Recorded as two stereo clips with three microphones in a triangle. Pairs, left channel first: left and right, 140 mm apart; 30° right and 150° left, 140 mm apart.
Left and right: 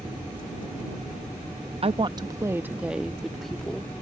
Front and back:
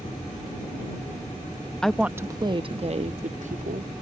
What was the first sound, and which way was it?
A woman speaking, 115° right.